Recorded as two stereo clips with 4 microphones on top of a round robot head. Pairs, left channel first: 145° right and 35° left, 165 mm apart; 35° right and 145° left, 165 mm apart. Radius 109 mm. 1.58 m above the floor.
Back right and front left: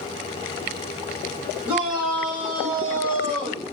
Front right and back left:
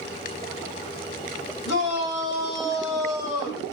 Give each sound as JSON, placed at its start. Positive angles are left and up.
{"t": 1.6, "sound": "a shout", "azimuth_deg": -45, "distance_m": 7.5}